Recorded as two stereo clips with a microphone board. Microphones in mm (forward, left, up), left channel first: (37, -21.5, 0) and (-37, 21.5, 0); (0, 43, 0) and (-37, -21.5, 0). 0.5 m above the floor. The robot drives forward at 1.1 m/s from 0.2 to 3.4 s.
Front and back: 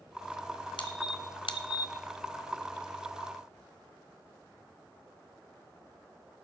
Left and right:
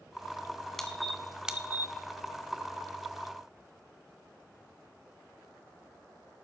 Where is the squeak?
25° right, 1.7 m; by 1.9 s 70° right, 0.7 m.